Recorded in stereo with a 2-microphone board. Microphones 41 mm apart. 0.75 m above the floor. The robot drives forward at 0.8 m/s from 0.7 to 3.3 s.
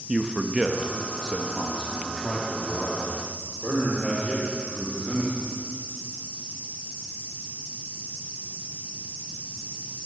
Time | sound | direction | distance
0.1 | a man speaking | 15° right (ahead or behind) | 0.6 m